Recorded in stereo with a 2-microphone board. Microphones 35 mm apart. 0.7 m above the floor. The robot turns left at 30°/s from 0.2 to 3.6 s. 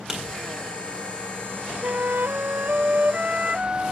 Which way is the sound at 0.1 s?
10° right (ahead or behind).